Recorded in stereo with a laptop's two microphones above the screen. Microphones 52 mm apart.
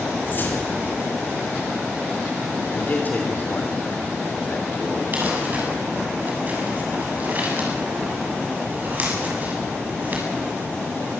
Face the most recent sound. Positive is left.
turn(degrees=-35)  # may be behind; listen again after turning